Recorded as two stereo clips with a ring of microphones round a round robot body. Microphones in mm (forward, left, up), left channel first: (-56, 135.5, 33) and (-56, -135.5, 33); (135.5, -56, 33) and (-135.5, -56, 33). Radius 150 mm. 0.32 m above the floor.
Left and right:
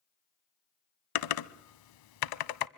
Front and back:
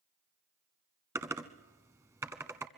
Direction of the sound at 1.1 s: 100° left.